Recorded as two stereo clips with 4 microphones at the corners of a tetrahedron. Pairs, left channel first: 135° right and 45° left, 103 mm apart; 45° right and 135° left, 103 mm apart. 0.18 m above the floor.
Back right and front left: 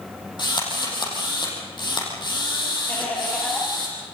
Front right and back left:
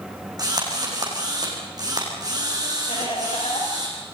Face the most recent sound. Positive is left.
turn(degrees=-60)